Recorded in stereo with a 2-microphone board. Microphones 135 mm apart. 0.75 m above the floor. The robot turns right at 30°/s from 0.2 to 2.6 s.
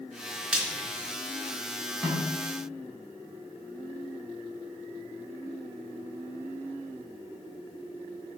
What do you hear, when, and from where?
0.5 s frying: 5° right (ahead or behind), 3.5 m; by 0.9 s 5° left (ahead or behind), 3.5 m
2.0 s a snare drum: 5° left (ahead or behind), 7.5 m; by 2.3 s 15° left (ahead or behind), 7.5 m